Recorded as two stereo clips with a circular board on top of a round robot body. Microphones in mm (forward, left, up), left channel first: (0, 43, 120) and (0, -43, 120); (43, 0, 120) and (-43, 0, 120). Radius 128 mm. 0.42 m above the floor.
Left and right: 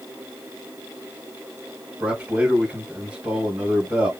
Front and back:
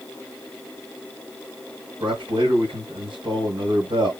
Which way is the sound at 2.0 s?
165° right.